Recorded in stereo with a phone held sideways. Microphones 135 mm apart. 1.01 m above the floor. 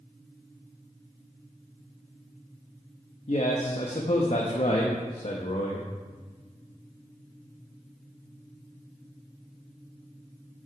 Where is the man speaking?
50° left (ahead or behind), 1.1 m.